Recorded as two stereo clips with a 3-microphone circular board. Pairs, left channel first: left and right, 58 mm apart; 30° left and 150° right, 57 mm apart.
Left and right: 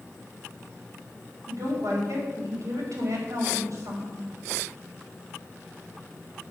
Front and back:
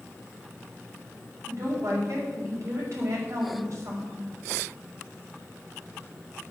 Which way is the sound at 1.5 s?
115° right.